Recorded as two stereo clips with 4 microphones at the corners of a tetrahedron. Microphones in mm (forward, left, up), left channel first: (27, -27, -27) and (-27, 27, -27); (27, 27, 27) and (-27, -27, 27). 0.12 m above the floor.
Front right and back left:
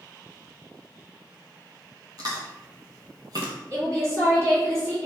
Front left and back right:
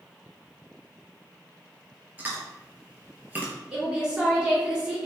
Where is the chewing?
160° left, 0.7 m.